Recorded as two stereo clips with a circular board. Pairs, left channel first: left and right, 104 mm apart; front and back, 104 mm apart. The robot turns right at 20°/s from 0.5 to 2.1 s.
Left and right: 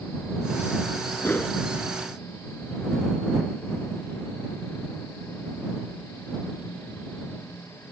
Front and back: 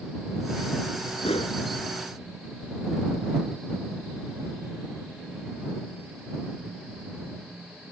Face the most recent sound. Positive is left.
turn(degrees=35)